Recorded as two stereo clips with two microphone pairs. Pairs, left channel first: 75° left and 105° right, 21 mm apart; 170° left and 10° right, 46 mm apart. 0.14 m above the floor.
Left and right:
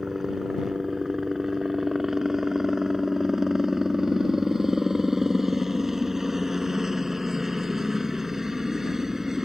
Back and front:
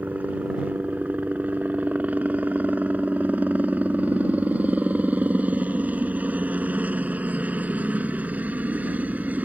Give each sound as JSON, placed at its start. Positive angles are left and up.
{"t": 0.0, "sound": "a helicopter", "azimuth_deg": -35}